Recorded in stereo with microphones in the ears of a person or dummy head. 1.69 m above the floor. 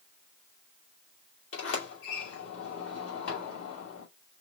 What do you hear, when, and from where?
1.5 s a sliding door: 65° left (ahead or behind), 2.5 m